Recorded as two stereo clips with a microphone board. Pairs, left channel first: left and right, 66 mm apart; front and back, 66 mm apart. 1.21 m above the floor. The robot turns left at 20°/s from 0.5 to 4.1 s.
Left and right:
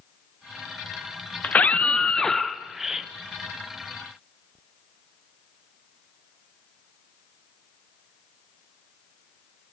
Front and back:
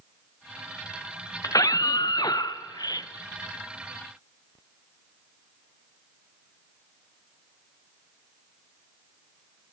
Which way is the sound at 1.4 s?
20° left.